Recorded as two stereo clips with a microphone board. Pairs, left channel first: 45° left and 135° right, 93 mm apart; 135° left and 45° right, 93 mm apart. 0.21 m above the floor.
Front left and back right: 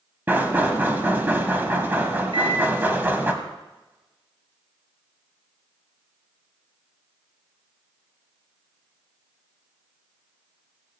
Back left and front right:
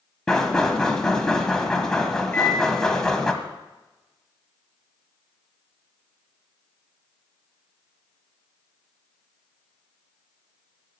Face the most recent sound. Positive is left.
turn(degrees=-155)